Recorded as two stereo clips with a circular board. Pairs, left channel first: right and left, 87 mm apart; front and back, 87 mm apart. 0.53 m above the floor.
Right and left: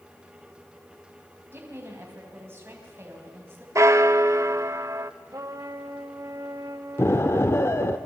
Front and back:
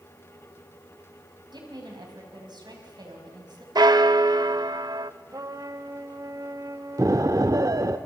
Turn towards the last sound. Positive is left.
turn(degrees=-145)